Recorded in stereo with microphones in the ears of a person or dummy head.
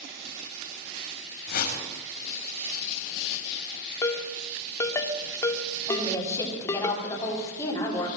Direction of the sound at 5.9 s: 20° left (ahead or behind).